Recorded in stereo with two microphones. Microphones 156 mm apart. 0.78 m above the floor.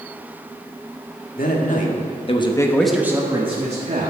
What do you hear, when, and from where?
1.4 s a man speaking: 65° left (ahead or behind), 2 m; by 4.1 s 50° right (ahead or behind), 1.9 m